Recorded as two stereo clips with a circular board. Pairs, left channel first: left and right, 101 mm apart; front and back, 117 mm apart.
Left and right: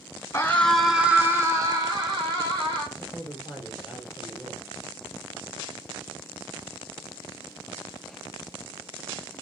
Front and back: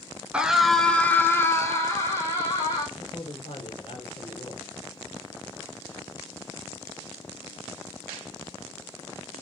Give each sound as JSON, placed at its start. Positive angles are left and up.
{"t": 0.3, "sound": "a scream", "azimuth_deg": 115, "distance_m": 1.3}
{"t": 3.0, "sound": "a man speaking", "azimuth_deg": -20, "distance_m": 2.0}